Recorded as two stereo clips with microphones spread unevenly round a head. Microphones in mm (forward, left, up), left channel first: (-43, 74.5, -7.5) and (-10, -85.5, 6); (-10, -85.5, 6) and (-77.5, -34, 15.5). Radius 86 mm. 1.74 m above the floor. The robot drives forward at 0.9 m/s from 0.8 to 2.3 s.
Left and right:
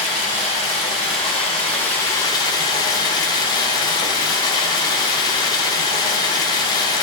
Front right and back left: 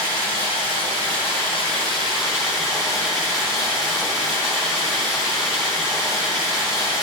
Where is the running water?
10° left, 1.9 m; by 7.0 s 30° left, 0.7 m.